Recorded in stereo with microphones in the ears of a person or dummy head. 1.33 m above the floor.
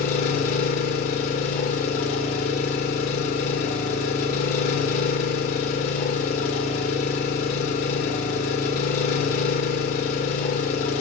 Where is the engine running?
45° left (ahead or behind), 1.3 m.